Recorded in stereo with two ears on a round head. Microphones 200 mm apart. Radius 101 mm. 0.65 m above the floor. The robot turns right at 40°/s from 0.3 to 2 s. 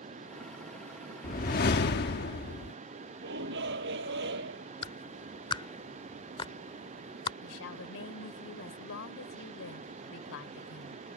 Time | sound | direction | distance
1.2 | a whoosh | 50° left | ?
3.2 | a shout | 50° right (ahead or behind) | ?
4.8 | a clap | 20° left (ahead or behind) | ?
7.4 | a woman speaking | 65° left (ahead or behind) | ?